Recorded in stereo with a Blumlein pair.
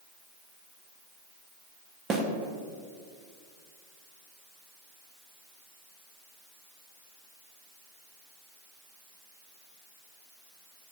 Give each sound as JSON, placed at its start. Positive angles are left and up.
{"t": 2.1, "sound": "a snare drum", "azimuth_deg": -20, "distance_m": 1.0}